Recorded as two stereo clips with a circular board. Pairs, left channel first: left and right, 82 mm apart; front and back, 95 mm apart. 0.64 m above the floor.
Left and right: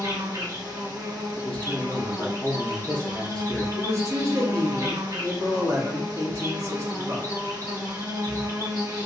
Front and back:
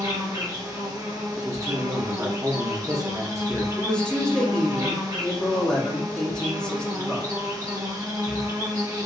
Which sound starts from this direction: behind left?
A man speaking, at 1.4 s.